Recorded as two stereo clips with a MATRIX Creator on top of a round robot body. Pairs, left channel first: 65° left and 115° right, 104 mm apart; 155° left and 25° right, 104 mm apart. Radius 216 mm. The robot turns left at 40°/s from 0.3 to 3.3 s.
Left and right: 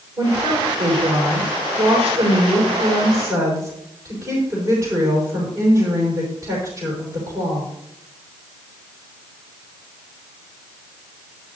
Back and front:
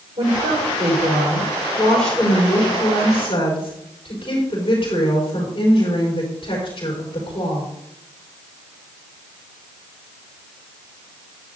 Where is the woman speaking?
45° right, 5 m; by 7.7 s 165° right, 5 m.